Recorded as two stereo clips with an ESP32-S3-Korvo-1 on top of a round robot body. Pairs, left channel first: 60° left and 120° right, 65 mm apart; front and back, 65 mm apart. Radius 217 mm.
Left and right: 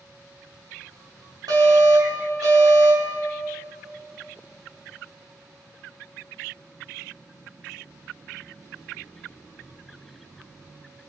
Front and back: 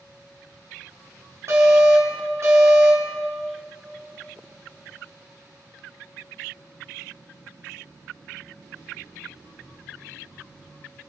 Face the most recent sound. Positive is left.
turn(degrees=-135)